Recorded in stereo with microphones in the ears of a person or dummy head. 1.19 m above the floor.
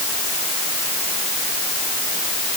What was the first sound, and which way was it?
Only background noise.